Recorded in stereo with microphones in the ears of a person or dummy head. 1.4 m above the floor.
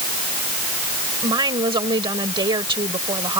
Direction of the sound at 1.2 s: 25° right (ahead or behind).